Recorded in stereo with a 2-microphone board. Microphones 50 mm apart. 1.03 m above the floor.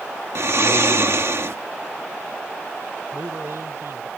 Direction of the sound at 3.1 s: 65° right (ahead or behind).